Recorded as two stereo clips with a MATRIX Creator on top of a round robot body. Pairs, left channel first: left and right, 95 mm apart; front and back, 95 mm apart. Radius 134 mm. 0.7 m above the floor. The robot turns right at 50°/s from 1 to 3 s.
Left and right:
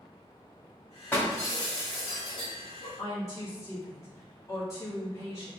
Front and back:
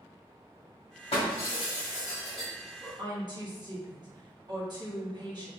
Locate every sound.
1.1 s breaking glass: 20° left, 2.0 m; by 2.9 s 105° left, 2.0 m
3.0 s a woman speaking: 145° left, 1.8 m